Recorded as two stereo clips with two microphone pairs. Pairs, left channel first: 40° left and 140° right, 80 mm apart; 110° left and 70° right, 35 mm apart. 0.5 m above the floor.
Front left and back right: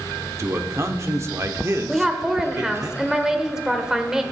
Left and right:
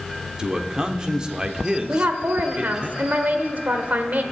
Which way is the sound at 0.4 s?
125° right.